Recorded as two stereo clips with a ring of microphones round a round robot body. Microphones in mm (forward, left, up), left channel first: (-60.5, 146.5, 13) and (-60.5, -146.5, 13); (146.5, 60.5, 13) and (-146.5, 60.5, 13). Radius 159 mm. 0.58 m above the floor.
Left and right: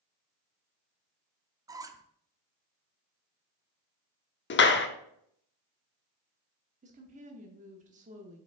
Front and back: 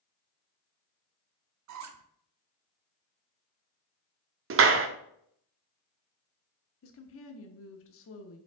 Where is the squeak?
165° right, 0.5 m.